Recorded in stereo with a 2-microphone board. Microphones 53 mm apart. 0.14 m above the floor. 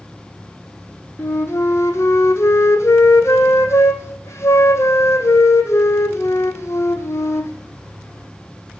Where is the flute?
60° left (ahead or behind), 0.9 m.